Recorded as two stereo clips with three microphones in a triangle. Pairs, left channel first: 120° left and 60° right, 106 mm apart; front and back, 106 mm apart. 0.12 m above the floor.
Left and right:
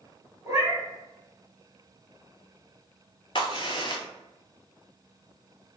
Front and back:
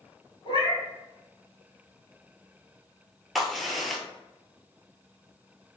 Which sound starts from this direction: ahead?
A cat meowing, at 0.5 s.